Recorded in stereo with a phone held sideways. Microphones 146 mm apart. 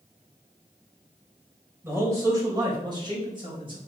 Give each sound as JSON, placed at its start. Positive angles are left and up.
{"t": 1.8, "sound": "a man speaking", "side_deg": -15, "distance_m": 4.0}